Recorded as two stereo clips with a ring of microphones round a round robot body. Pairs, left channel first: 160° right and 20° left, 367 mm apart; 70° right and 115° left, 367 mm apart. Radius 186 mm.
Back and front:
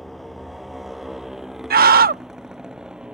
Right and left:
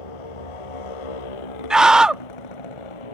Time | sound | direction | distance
0.0 | a motorcycle | 70° right | ?
1.7 | a scream | 30° left | ?